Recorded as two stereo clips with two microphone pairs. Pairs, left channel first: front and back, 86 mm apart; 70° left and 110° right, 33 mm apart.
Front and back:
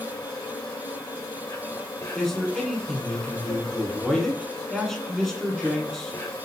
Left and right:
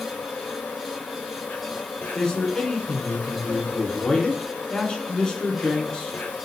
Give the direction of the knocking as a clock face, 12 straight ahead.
I don't hear knocking.